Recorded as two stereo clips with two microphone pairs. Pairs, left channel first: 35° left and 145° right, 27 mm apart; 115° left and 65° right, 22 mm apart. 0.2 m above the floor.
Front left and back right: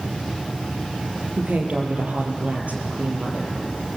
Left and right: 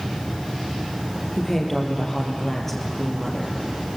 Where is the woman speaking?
165° right, 4 m.